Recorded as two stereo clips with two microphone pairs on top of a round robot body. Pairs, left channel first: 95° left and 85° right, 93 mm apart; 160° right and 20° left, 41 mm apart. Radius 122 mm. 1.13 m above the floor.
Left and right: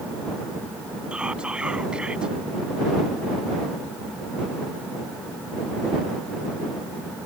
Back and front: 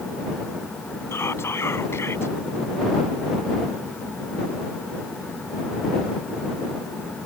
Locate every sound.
1.1 s whispering: 170° right